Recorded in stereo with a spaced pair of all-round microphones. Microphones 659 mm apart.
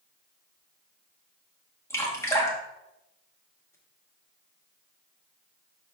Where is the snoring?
I don't hear snoring.